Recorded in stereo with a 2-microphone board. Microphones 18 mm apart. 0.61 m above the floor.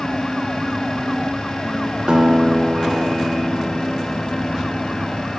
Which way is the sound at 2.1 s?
50° right (ahead or behind).